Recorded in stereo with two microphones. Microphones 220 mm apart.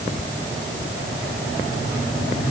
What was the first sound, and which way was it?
Only background noise.